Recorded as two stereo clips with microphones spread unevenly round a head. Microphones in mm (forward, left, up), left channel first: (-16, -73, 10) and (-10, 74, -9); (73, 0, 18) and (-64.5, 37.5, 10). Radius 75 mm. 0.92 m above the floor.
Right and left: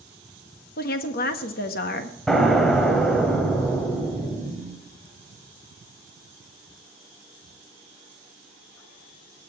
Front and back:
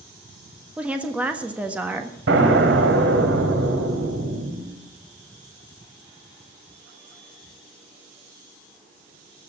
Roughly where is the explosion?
Behind.